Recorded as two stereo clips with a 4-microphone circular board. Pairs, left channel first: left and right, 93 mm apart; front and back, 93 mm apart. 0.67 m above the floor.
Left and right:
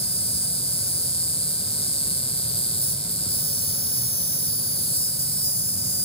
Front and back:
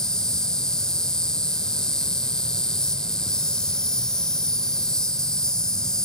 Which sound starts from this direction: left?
An insect, at 0.0 s.